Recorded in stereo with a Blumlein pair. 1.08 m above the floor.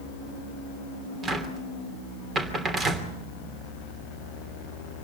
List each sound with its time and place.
1.2 s a cupboard door: 20° right, 3 m